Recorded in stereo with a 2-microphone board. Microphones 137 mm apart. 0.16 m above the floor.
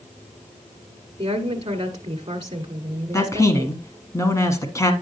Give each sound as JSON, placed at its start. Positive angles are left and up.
{"t": 1.2, "sound": "a woman speaking", "side_deg": -35, "distance_m": 1.6}
{"t": 3.1, "sound": "a man speaking", "side_deg": 25, "distance_m": 1.4}